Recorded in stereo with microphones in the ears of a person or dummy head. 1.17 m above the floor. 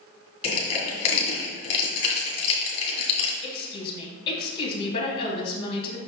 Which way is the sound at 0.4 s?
30° left (ahead or behind).